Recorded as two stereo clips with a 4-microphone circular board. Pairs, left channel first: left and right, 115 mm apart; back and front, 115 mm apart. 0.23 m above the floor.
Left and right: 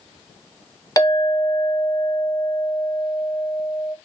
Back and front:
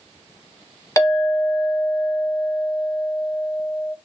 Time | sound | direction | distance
1.0 | a clink | 130° left | 0.8 m